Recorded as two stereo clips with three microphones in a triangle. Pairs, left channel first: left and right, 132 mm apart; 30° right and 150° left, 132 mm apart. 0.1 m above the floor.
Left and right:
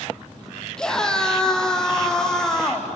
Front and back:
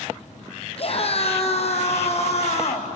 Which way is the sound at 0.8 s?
5° left.